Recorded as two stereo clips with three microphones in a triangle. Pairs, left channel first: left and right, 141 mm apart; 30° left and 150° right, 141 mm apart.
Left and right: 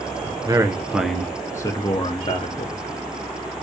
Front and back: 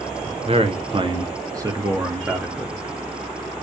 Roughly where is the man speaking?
Behind right.